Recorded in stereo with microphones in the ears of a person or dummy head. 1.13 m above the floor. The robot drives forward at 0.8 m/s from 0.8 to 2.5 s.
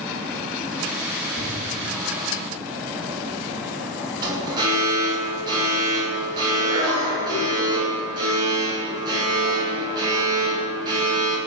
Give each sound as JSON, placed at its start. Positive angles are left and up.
{"t": 1.4, "sound": "an explosion", "side_deg": -55, "distance_m": 4.5}
{"t": 4.2, "sound": "an alarm", "side_deg": -25, "distance_m": 6.5}